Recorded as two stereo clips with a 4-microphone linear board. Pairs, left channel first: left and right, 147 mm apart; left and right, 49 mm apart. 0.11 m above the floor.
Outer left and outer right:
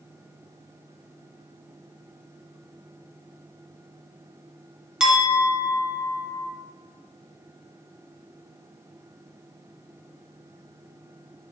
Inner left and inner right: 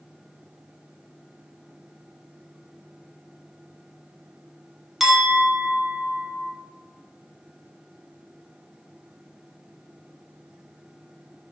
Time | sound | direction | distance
5.0 | a clink | 5° right (ahead or behind) | 0.7 m